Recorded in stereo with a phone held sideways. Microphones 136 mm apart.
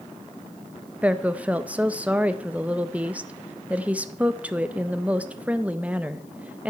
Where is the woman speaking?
10° right (ahead or behind), 0.6 m.